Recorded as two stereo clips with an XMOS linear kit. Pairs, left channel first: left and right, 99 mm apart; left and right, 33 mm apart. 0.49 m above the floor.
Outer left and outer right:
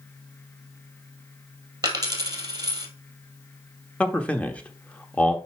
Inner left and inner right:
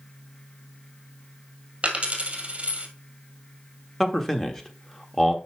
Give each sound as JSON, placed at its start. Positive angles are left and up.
{"t": 1.8, "sound": "a dropped coin", "side_deg": -40, "distance_m": 1.8}
{"t": 4.0, "sound": "a man speaking", "side_deg": 10, "distance_m": 1.1}